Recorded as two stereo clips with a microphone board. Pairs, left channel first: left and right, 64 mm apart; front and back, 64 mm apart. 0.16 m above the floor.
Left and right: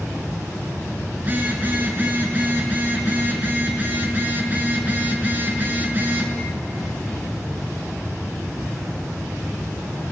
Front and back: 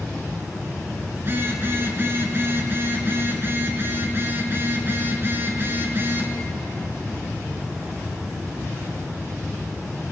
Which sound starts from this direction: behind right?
A phone buzzing, at 1.2 s.